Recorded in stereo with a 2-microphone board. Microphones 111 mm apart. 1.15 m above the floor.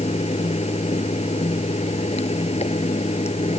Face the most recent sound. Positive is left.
turn(degrees=75)  # may be behind; listen again after turning